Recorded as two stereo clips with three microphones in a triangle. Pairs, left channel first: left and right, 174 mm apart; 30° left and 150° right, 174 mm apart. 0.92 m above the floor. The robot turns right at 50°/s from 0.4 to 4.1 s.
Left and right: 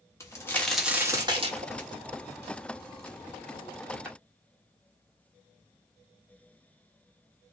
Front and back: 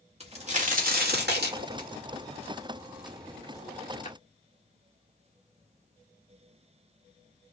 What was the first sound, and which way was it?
A crack, 160° left.